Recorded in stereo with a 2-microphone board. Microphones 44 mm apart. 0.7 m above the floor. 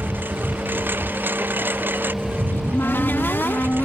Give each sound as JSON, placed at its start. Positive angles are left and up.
{"t": 0.0, "sound": "a lawn mower", "side_deg": -50}
{"t": 2.5, "sound": "a cupboard door", "side_deg": 55}